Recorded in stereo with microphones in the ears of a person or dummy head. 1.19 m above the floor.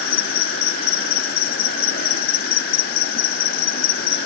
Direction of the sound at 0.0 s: 40° left (ahead or behind).